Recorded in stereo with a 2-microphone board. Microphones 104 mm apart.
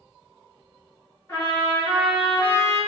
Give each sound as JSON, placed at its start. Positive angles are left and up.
{"t": 1.3, "sound": "a trumpet", "side_deg": 25, "distance_m": 1.4}